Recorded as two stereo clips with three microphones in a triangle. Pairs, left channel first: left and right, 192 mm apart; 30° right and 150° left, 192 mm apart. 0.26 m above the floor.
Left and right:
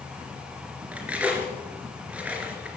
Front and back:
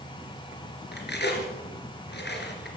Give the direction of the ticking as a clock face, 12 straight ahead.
I don't hear ticking.